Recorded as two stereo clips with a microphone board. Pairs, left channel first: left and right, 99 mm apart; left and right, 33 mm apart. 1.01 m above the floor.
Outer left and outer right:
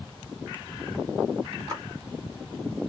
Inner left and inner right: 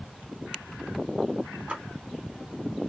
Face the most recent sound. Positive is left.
turn(degrees=-40)  # may be behind; listen again after turning